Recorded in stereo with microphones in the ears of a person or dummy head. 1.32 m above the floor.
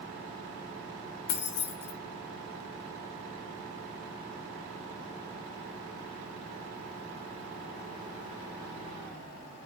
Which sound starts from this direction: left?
Keys jangling, at 1.3 s.